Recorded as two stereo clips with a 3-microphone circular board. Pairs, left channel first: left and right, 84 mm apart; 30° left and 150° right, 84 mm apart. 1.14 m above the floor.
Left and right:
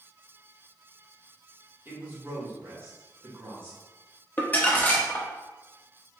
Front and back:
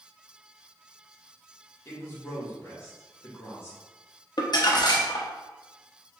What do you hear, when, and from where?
1.9 s a man speaking: 30° right, 1.5 m
4.4 s crumpling: 25° left, 0.7 m